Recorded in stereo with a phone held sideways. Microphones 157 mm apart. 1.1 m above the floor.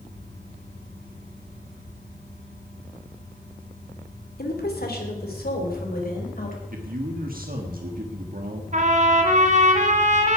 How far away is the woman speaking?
About 3 m.